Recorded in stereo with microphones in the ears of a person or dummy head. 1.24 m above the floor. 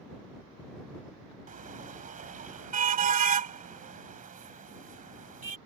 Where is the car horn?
40° right (ahead or behind).